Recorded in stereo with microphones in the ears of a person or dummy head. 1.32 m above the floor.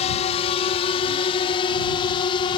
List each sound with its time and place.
0.0 s a drone: 30° left (ahead or behind); by 2.6 s 25° left (ahead or behind)